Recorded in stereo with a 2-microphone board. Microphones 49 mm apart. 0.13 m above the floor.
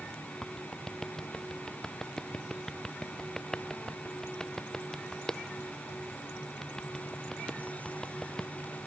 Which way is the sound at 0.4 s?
10° left (ahead or behind).